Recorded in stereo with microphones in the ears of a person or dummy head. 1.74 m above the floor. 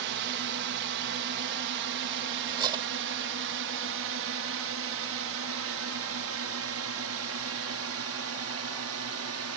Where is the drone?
60° right (ahead or behind); by 9.6 s 70° right (ahead or behind).